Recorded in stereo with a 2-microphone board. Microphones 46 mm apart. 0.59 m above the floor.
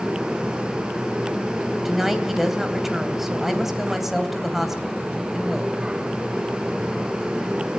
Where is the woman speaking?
5° right (ahead or behind), 3 m.